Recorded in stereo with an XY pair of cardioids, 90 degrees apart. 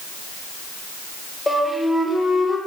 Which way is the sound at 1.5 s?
15° left.